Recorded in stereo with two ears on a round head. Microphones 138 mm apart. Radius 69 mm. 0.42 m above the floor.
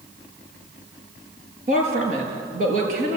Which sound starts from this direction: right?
A woman speaking, at 1.7 s.